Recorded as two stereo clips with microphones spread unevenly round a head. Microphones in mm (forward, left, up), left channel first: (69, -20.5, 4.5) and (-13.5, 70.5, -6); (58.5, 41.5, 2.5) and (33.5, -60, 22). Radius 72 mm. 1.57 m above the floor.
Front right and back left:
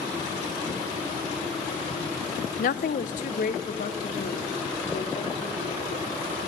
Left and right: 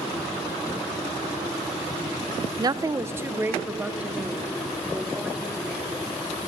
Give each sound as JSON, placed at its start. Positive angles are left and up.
{"t": 2.6, "sound": "a woman speaking", "azimuth_deg": -60, "distance_m": 0.8}